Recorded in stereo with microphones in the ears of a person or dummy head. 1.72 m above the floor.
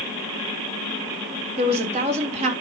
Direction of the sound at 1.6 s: 35° right (ahead or behind).